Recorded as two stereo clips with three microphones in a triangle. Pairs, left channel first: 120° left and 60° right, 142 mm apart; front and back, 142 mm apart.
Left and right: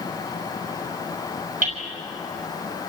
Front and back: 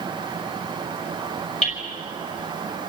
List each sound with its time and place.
1.6 s hammering: 40° right, 5 m